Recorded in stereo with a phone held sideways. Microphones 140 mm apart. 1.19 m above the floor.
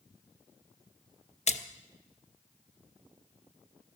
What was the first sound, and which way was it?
A splash, 50° left (ahead or behind).